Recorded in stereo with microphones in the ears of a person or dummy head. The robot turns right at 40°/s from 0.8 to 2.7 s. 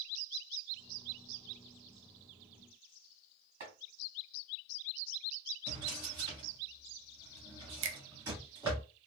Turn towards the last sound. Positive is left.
turn(degrees=-75)  # may be behind; listen again after turning